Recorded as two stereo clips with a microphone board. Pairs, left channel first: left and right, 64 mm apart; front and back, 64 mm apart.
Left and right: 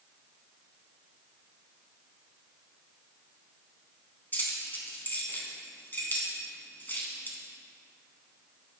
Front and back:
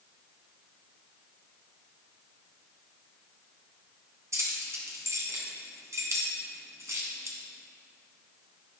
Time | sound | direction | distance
4.3 | keys jangling | 145° left | 1.9 m